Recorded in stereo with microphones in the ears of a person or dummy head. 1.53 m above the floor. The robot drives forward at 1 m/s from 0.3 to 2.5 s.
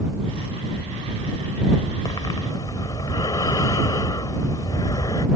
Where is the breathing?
15° left (ahead or behind).